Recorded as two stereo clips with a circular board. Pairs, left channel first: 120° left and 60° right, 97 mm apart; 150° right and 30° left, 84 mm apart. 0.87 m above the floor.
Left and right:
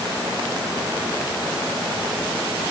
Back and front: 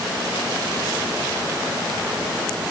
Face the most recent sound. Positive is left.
No sound to turn to.